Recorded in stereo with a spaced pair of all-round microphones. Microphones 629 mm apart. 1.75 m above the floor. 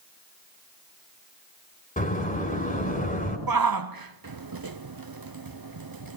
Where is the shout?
35° right (ahead or behind), 0.7 m.